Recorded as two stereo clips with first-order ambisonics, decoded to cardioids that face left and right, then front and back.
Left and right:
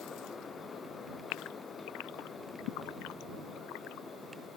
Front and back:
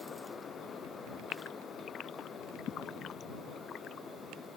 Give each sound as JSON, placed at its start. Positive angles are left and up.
{"t": 1.3, "sound": "a gasp", "azimuth_deg": 60}